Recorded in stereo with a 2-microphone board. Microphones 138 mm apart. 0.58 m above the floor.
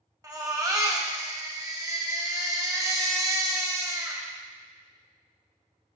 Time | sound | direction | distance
0.2 | a baby crying | 25° right (ahead or behind) | 1.1 m